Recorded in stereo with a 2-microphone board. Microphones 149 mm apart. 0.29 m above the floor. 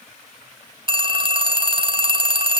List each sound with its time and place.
0.9 s a phone ringing: 35° right (ahead or behind), 0.9 m